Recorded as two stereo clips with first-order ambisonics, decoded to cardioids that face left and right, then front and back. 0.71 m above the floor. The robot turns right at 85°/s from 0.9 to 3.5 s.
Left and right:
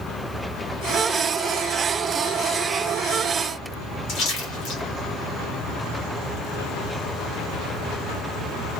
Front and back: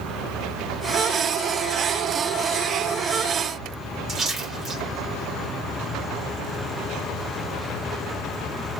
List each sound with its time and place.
4.1 s a splash: 115° left, 1.9 m